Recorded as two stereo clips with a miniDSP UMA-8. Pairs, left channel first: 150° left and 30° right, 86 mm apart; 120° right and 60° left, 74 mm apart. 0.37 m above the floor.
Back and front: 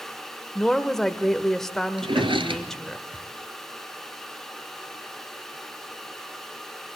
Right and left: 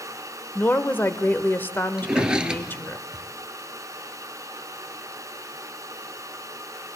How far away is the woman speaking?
About 1.0 m.